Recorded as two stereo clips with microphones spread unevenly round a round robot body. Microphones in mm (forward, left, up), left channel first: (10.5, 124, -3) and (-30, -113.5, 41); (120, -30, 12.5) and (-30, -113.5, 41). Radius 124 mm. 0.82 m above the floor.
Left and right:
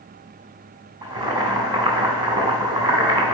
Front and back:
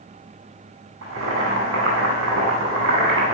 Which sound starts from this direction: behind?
Boiling, at 1.0 s.